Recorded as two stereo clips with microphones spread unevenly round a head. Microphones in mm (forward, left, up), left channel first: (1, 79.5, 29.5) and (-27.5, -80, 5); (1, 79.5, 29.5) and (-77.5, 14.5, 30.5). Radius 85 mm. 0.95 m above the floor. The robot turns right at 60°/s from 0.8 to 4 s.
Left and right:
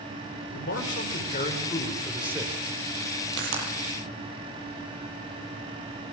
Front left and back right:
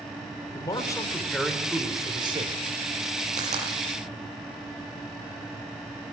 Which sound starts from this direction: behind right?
A pop, at 3.3 s.